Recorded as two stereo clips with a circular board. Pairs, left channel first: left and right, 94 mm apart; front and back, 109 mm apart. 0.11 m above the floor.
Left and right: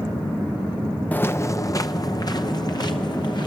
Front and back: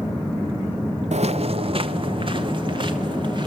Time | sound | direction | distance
1.1 | footsteps | 165° left | 0.6 m